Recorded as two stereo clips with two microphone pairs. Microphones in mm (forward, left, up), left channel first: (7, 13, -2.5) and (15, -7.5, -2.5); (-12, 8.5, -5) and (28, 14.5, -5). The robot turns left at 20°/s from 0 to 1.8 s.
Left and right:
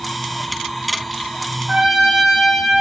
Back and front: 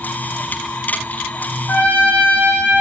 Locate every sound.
1.7 s a trumpet: 135° right, 5 m; by 2.8 s 140° right, 5 m